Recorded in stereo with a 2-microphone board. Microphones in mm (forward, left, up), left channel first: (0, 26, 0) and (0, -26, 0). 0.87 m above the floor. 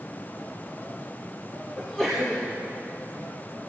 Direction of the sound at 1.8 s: 10° left (ahead or behind).